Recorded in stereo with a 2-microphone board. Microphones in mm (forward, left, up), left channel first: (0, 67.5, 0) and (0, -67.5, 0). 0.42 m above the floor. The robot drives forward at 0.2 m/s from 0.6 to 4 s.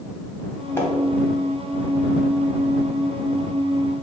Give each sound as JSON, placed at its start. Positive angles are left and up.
{"t": 0.8, "sound": "a splash", "side_deg": 20, "distance_m": 1.3}